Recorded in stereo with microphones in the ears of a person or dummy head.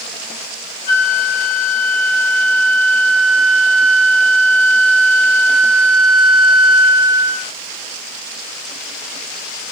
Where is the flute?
5° right (ahead or behind), 2 m.